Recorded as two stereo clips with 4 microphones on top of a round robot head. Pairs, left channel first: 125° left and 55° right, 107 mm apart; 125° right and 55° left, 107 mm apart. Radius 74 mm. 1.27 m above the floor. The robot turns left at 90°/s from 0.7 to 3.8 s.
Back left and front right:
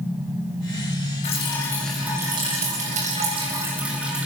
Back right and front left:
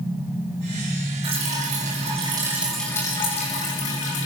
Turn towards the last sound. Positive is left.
turn(degrees=-135)